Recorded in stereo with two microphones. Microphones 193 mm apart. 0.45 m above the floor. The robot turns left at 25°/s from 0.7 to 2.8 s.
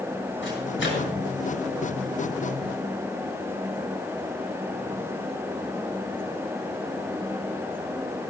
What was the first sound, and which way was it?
A microwave, 80° left.